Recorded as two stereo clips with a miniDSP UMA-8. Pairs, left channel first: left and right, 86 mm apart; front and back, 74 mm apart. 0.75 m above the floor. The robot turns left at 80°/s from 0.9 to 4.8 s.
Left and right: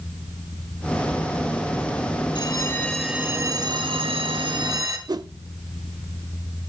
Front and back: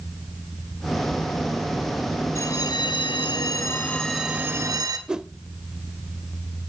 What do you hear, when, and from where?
2.4 s a bell: 55° left, 1.7 m; by 5.0 s 140° right, 1.7 m
5.1 s a whoosh: 105° right, 0.6 m